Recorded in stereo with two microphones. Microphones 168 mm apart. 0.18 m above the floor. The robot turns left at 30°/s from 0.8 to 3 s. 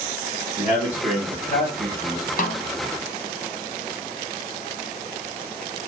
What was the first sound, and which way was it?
A man speaking, 125° left.